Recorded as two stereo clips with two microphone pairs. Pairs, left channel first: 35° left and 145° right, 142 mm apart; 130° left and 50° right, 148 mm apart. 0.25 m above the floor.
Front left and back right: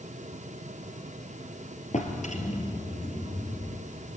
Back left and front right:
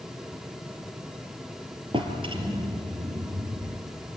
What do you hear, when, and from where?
1.9 s a drawer: 5° left, 3 m